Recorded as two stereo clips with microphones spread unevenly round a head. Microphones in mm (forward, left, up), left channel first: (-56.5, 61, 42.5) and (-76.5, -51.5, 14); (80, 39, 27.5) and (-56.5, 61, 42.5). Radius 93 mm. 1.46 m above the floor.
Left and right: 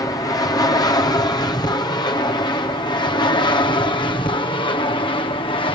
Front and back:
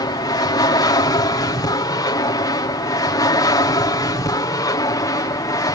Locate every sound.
0.0 s an aircraft: 20° left; by 5.8 s 35° left